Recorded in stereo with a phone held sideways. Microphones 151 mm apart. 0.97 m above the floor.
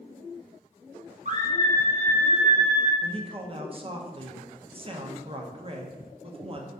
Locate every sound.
1.2 s a scream: 55° right (ahead or behind), 0.8 m; by 2.9 s 45° right (ahead or behind), 1.7 m
3.0 s a man speaking: 40° right (ahead or behind), 0.5 m